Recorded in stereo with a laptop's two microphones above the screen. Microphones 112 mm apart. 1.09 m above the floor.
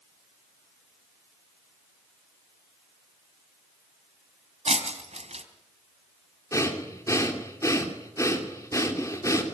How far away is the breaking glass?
About 2.5 m.